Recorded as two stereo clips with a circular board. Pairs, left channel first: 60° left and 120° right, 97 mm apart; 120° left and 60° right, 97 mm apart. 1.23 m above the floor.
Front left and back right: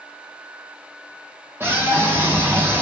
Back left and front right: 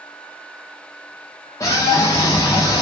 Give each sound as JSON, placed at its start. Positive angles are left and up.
{"t": 1.6, "sound": "a scream", "azimuth_deg": 175, "distance_m": 2.5}